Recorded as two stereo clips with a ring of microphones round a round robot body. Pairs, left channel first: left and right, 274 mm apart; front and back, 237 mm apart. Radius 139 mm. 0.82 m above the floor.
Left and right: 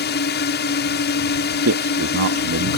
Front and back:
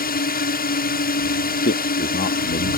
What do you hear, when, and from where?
0.0 s a drone: 45° left
1.6 s a man speaking: 55° right